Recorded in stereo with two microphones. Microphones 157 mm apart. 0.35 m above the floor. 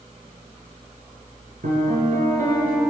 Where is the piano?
65° right (ahead or behind), 3 m.